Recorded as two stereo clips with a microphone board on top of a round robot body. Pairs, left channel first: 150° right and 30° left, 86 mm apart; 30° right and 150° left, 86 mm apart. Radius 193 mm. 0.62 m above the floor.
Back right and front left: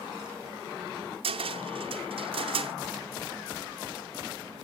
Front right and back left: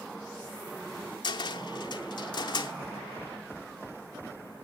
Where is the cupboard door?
10° left, 0.7 m.